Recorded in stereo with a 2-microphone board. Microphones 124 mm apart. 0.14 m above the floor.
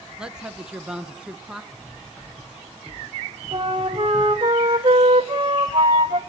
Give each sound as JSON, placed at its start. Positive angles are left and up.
{"t": 0.2, "sound": "a woman speaking", "side_deg": -5, "distance_m": 1.5}
{"t": 1.7, "sound": "cutlery clinking", "side_deg": 5, "distance_m": 8.0}
{"t": 3.5, "sound": "a flute", "side_deg": -40, "distance_m": 2.0}